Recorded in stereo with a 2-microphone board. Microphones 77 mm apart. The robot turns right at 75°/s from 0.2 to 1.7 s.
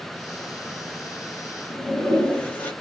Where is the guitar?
No guitar in this recording.